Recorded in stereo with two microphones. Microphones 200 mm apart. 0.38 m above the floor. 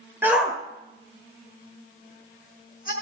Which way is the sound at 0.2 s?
10° right (ahead or behind).